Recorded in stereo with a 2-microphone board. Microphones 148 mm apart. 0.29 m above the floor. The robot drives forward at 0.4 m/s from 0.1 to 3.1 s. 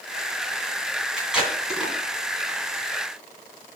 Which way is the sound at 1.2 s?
5° right (ahead or behind).